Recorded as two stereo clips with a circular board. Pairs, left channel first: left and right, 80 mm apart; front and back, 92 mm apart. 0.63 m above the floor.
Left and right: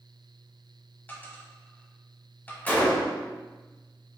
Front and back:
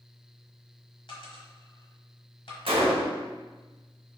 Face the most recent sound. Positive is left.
turn(degrees=160)